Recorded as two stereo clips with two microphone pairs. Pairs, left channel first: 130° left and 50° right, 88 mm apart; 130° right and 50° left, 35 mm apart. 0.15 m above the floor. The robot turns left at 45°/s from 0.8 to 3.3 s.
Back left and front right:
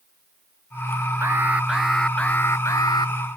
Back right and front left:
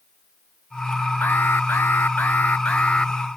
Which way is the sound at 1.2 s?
110° right.